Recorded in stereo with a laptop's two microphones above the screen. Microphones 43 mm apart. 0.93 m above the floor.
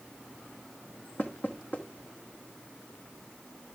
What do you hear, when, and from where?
1.2 s knocking: 40° left (ahead or behind), 1.1 m